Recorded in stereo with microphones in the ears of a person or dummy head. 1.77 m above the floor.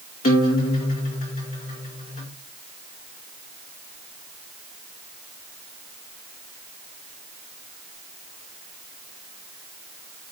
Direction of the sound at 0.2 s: 40° left (ahead or behind).